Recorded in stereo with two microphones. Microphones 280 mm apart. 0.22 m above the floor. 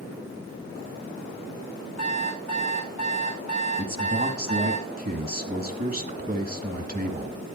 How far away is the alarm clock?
About 8 m.